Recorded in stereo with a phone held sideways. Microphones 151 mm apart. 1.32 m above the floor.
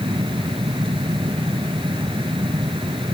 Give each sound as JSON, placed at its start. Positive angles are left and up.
{"t": 0.0, "sound": "a fan", "side_deg": -35}